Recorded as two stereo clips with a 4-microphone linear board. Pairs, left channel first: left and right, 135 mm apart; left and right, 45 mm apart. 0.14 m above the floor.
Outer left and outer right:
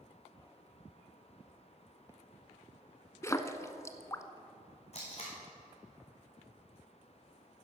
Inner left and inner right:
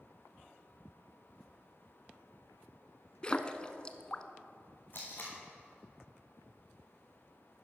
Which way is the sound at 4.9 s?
50° left (ahead or behind).